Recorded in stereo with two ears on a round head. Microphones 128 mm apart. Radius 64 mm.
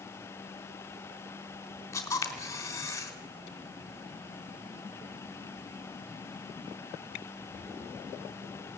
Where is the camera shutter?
20° left (ahead or behind), 3.5 m.